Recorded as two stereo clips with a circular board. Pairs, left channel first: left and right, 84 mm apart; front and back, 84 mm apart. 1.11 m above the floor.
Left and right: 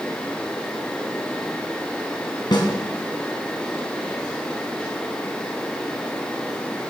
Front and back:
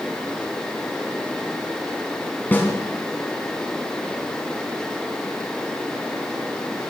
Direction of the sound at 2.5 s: 65° left.